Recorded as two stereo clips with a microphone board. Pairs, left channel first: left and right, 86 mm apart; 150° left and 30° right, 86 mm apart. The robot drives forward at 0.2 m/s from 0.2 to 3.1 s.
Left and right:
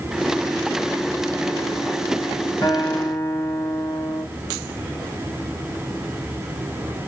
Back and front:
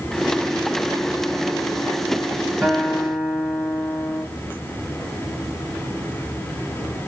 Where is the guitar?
60° left, 1.8 m; by 4.2 s 65° left, 1.7 m.